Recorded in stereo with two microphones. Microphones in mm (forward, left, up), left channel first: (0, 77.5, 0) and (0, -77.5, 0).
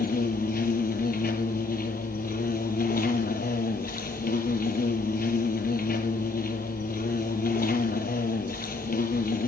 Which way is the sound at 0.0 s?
70° left (ahead or behind).